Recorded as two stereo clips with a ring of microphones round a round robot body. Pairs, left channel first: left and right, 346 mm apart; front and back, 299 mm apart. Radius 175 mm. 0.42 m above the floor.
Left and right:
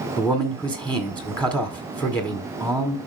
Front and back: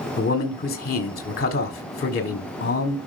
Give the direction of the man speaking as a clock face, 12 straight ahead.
12 o'clock.